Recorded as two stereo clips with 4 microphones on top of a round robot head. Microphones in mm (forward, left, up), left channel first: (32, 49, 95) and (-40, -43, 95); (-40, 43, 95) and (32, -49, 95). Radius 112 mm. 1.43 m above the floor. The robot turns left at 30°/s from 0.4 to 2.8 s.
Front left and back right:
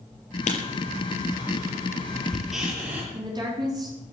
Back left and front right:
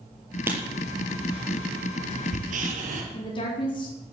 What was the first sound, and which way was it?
Writing, 20° left.